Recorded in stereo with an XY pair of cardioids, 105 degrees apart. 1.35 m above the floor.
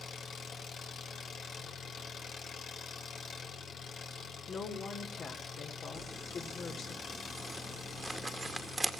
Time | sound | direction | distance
0.0 | an engine running | 60° left | 3.5 m
4.5 | a woman speaking | 55° left | 4 m
6.0 | crumpling | 15° right | 1.9 m